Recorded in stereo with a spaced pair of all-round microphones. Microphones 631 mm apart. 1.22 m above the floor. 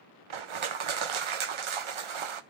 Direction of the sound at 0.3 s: 55° right (ahead or behind).